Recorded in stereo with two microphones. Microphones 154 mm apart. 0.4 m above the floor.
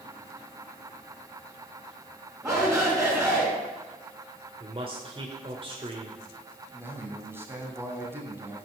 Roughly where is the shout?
Centre.